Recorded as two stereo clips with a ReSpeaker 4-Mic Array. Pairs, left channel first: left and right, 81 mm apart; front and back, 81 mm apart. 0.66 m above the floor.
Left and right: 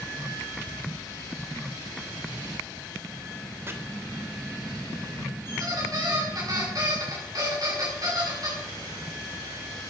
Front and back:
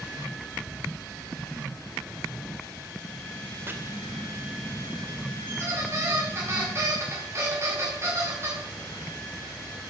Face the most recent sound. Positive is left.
turn(degrees=-125)